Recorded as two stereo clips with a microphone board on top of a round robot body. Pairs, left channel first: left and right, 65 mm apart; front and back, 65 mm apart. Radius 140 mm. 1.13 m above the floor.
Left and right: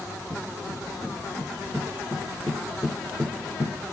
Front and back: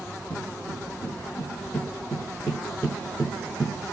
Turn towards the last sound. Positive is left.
turn(degrees=150)